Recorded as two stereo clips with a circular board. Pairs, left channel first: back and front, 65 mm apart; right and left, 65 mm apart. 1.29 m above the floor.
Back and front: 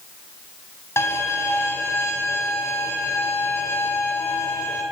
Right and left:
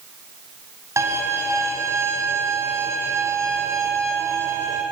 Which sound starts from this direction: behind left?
A violin, at 1.0 s.